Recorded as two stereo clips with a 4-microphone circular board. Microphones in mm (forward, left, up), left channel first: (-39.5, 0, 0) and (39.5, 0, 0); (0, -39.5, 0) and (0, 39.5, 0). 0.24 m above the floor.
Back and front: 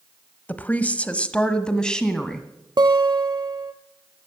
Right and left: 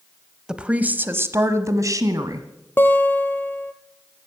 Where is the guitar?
25° right, 1.4 m.